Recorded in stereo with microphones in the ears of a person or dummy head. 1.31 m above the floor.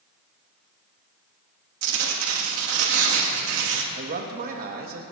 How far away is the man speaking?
About 2 m.